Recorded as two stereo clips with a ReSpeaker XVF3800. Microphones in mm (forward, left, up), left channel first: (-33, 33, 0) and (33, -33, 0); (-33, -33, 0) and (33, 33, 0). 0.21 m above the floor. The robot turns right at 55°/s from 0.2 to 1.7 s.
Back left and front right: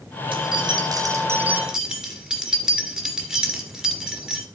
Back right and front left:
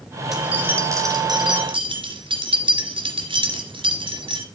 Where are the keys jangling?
40° right, 2.5 m; by 4.5 s 35° left, 2.5 m.